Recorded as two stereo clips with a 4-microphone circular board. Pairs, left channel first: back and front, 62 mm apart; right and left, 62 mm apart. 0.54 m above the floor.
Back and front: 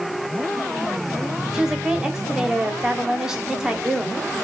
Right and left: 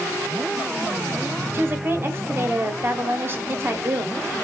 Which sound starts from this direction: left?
A woman speaking, at 1.5 s.